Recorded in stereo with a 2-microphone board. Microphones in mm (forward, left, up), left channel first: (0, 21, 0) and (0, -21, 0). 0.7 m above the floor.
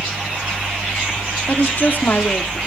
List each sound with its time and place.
1.5 s a woman speaking: 50° left (ahead or behind), 1.3 m